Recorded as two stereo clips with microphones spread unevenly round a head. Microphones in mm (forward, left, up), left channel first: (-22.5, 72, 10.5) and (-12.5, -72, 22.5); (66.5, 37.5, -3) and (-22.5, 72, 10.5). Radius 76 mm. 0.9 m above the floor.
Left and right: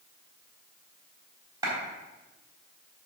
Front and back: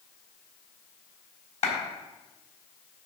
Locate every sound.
1.6 s a clap: 15° right, 4 m